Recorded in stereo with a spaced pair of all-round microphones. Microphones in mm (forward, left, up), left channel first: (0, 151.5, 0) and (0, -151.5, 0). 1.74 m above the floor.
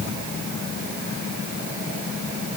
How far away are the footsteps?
I don't hear footsteps.